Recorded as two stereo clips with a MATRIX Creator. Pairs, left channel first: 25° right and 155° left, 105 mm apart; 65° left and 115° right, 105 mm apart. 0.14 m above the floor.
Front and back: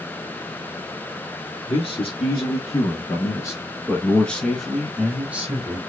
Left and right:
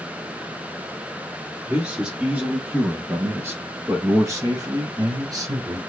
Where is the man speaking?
35° right, 1.8 m; by 5.8 s 145° right, 1.4 m.